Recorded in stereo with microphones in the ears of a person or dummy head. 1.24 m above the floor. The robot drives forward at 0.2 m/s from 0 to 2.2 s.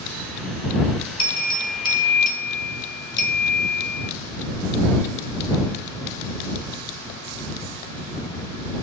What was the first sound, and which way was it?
A bell, 25° left (ahead or behind).